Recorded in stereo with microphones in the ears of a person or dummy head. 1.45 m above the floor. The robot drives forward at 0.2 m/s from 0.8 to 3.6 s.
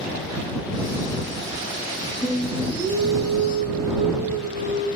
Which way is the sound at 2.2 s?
55° left (ahead or behind).